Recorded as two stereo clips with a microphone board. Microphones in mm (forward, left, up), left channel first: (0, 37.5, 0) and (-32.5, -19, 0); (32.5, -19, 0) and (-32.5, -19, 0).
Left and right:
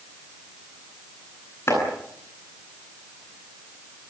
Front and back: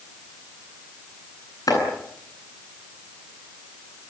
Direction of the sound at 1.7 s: 10° left.